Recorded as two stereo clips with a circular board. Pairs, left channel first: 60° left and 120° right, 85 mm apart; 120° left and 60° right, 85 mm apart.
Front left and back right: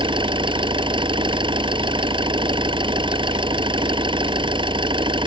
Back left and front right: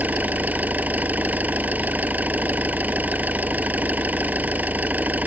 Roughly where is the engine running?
Behind right.